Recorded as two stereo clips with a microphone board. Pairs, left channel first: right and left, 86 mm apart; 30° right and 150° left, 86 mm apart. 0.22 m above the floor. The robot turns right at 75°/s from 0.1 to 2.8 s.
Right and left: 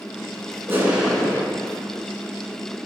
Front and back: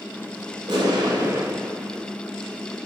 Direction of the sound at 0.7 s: 150° left.